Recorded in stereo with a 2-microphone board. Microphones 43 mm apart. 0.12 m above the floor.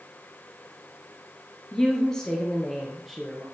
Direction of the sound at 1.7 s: 20° left (ahead or behind).